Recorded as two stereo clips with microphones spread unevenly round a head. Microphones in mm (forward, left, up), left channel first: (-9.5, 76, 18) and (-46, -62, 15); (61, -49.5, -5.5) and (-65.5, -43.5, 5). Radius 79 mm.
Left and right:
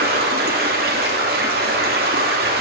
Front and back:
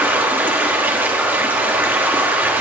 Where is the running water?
110° right, 2.0 m.